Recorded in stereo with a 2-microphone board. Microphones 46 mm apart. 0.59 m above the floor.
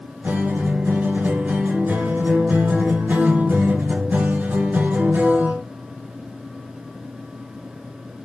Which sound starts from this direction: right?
A guitar, at 0.2 s.